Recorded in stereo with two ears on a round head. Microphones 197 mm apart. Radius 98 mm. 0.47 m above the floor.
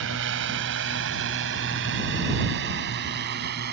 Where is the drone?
60° right (ahead or behind); by 3.7 s 50° right (ahead or behind).